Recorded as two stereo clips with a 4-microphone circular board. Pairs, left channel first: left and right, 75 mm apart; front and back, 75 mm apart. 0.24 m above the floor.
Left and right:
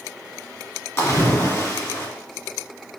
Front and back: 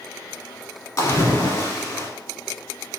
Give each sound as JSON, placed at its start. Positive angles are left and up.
{"t": 1.0, "sound": "a splash", "azimuth_deg": 40, "distance_m": 1.1}